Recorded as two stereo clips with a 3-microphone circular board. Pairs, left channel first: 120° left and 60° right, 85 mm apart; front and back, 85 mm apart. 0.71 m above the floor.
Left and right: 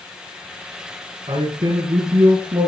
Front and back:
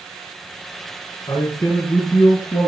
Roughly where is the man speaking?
Ahead right.